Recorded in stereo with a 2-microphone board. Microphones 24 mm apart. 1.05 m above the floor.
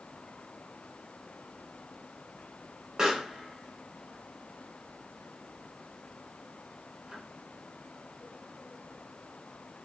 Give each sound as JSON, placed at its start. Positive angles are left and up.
{"t": 3.0, "sound": "a pop", "side_deg": -25, "distance_m": 1.0}